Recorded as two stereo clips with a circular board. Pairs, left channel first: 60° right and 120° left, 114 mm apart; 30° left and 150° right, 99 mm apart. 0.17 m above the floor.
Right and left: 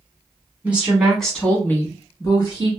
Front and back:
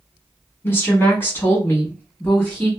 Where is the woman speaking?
60° left, 1.2 m; by 2.7 s 40° right, 1.5 m.